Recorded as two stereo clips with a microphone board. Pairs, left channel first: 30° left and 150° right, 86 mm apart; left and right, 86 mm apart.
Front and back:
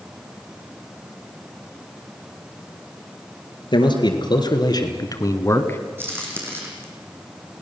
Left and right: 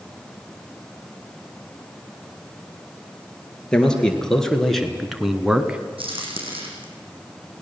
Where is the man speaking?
10° left, 3.5 m; by 5.8 s 20° right, 1.7 m.